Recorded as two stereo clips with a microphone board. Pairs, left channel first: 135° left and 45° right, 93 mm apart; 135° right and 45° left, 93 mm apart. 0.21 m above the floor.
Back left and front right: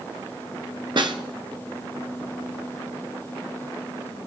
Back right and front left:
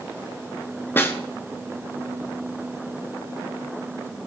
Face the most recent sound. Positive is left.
turn(degrees=-70)